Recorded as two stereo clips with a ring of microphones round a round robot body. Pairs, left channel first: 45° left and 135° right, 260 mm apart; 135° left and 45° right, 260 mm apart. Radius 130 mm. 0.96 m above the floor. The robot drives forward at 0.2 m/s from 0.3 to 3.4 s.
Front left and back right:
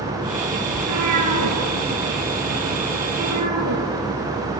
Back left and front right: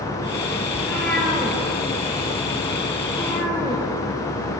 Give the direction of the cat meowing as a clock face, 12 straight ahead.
5 o'clock.